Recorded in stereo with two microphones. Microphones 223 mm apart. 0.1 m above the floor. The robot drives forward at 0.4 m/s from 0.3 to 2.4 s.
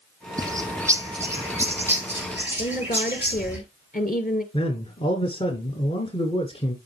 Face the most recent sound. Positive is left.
turn(degrees=25)  # may be behind; listen again after turning